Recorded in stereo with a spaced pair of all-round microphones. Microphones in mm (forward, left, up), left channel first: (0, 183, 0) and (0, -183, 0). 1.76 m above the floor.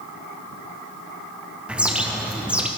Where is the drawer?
I don't hear a drawer.